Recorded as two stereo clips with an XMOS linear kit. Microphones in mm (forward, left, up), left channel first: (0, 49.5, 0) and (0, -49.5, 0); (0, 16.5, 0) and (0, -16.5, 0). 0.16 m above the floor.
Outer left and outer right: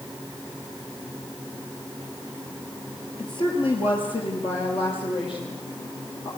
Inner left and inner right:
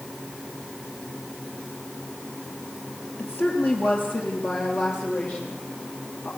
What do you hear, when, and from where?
3.2 s a woman speaking: 55° left (ahead or behind), 4 m; by 6.3 s 60° left (ahead or behind), 8 m